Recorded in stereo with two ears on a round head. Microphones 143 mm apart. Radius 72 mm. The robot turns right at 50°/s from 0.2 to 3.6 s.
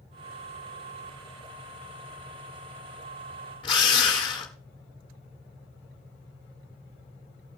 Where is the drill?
30° left (ahead or behind), 1.6 m.